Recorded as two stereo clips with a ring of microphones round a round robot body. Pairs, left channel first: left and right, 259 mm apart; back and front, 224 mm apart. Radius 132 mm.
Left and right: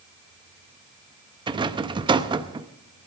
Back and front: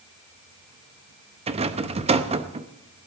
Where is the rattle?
35° right, 0.7 m.